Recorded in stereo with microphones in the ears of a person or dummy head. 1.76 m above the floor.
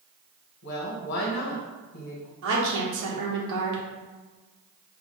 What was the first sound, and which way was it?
A woman speaking, 60° left (ahead or behind).